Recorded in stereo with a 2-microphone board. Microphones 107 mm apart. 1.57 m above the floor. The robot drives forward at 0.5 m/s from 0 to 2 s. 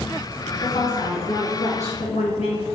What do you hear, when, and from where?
0.6 s a woman speaking: 65° left (ahead or behind), 1.4 m; by 2.6 s 80° left, 1.3 m